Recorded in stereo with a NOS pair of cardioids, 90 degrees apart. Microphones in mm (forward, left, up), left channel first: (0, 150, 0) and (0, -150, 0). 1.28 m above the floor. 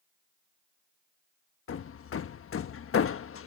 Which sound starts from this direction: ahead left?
Hammering, at 1.7 s.